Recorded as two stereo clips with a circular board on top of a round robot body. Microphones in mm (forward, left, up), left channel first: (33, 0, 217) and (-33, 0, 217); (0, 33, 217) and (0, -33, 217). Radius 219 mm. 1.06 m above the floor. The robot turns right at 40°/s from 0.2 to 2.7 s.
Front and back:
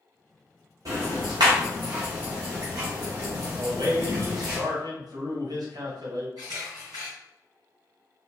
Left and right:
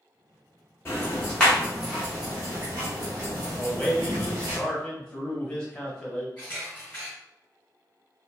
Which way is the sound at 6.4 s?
170° left.